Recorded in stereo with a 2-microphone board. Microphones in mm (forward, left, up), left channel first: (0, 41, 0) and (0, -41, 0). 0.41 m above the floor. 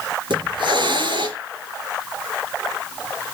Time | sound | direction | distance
0.3 | a hiss | 75° right (ahead or behind) | 3.5 m